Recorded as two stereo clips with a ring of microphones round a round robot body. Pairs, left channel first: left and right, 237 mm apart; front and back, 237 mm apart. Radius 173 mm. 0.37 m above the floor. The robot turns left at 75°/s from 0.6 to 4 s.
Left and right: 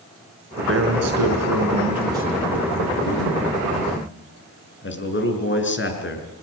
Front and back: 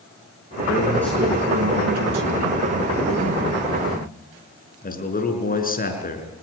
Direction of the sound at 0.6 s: 55° right.